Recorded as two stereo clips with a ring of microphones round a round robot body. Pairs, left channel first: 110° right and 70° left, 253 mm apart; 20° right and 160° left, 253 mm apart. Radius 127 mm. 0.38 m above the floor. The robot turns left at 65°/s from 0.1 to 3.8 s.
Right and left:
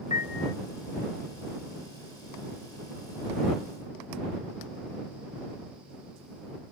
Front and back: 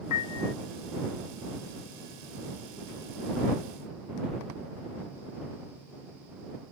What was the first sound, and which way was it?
A piano, 45° right.